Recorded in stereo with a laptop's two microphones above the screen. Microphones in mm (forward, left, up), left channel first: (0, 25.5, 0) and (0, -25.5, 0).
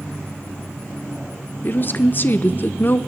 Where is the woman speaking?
40° left (ahead or behind), 0.6 m.